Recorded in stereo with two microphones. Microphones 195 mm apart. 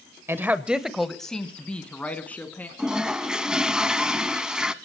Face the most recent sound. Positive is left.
turn(degrees=-5)  # may be behind; listen again after turning